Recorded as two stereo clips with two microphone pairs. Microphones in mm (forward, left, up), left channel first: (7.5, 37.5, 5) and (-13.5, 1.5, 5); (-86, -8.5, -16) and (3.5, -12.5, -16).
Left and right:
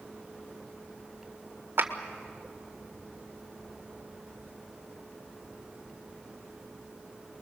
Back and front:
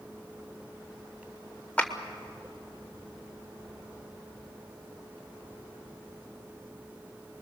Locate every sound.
1.8 s a clap: 110° right, 1.7 m